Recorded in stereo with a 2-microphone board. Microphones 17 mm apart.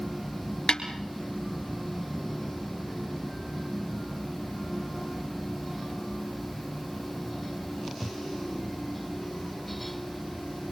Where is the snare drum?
60° left (ahead or behind), 3.5 m.